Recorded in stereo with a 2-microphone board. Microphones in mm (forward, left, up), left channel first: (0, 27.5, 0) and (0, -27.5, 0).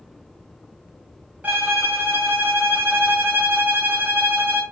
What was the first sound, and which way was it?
A violin, 35° right (ahead or behind).